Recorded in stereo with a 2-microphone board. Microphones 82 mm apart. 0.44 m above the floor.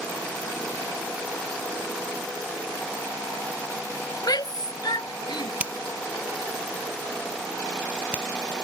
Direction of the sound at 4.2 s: 60° left (ahead or behind).